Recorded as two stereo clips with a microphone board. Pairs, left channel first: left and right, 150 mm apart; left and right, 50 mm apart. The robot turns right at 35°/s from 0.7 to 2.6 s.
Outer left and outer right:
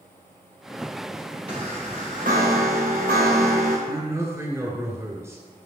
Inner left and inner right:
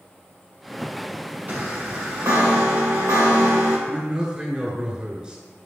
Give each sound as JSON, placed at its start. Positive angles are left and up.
{"t": 1.5, "sound": "a chime", "azimuth_deg": -140, "distance_m": 2.5}
{"t": 3.9, "sound": "a man speaking", "side_deg": -20, "distance_m": 1.4}